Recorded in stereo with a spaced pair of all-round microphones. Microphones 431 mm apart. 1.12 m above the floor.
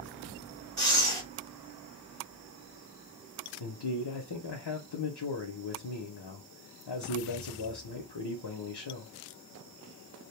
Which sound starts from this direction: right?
Breathing, at 0.8 s.